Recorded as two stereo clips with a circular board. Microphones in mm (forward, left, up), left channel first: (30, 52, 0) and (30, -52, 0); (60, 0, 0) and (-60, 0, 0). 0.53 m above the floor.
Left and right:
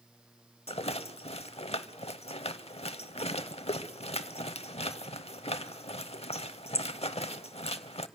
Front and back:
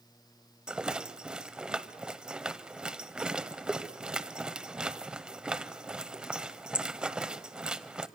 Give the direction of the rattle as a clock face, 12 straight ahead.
9 o'clock.